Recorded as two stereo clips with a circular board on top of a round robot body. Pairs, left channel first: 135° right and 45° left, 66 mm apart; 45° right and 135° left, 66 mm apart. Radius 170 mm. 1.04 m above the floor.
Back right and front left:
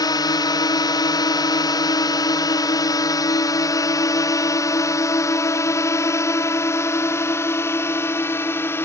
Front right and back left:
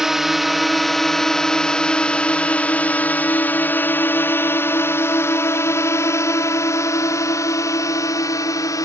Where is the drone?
140° right; by 8.9 s 80° right.